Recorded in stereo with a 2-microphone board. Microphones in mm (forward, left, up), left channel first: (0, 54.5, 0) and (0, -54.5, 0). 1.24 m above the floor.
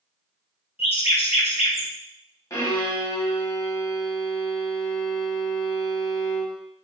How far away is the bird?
About 1.2 m.